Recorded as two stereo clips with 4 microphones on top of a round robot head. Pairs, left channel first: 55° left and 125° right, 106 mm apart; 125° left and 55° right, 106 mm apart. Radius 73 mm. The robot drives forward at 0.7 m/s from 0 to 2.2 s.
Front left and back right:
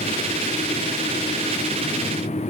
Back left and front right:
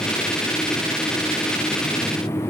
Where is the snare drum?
I don't hear a snare drum.